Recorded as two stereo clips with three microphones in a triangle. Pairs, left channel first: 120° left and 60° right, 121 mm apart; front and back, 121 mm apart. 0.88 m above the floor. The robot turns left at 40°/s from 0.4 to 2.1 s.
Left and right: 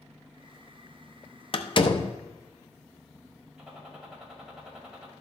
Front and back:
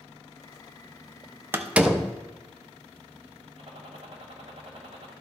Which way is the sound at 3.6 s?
145° right.